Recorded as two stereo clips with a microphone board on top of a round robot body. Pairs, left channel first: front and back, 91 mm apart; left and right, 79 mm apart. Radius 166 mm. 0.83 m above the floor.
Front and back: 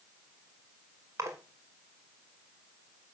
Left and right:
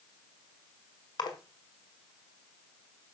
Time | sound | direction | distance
1.2 | a splash | 120° left | 1.7 m